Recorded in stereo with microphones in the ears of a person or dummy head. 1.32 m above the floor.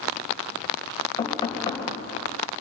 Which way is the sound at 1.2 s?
20° left (ahead or behind).